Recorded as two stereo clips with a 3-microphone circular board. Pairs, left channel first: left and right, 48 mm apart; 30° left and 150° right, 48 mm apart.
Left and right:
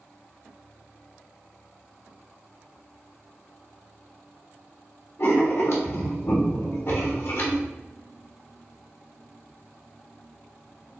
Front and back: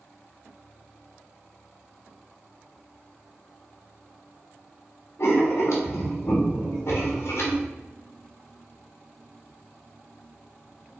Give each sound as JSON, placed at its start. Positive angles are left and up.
{"t": 5.2, "sound": "writing", "azimuth_deg": 60, "distance_m": 1.4}